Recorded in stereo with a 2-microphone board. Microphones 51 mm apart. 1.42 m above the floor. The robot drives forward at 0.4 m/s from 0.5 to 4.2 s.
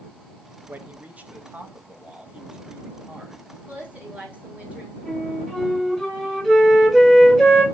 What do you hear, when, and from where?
0.7 s a man speaking: 35° right (ahead or behind), 1.1 m; by 3.4 s 20° right (ahead or behind), 2 m
3.7 s a woman speaking: 30° right (ahead or behind), 2.5 m
5.0 s a flute: 5° right (ahead or behind), 4 m